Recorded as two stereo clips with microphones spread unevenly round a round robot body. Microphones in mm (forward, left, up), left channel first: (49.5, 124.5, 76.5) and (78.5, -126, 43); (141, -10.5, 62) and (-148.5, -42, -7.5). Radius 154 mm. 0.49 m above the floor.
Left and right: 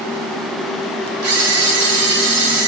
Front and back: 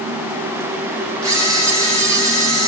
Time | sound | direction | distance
1.2 | a camera shutter | 100° right | 2.0 m